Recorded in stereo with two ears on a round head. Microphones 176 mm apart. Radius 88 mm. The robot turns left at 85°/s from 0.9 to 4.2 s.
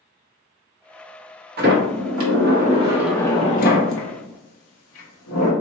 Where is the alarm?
No alarm in this recording.